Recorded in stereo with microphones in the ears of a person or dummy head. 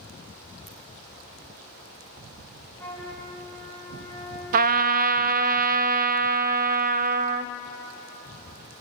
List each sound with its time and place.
0.7 s a ringtone: 35° left (ahead or behind), 4.5 m
2.8 s a flute: 10° left (ahead or behind), 9 m
4.5 s a trumpet: 50° right (ahead or behind), 0.6 m